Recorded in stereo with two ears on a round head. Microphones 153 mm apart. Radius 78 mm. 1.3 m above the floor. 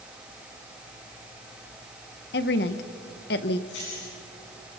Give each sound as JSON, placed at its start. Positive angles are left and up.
{"t": 2.3, "sound": "a woman speaking", "side_deg": 65, "distance_m": 1.1}
{"t": 3.7, "sound": "keys jangling", "side_deg": 85, "distance_m": 9.0}